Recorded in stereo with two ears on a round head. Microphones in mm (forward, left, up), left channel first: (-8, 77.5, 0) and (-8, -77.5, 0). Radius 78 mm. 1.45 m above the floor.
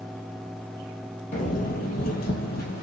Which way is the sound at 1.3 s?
45° left (ahead or behind).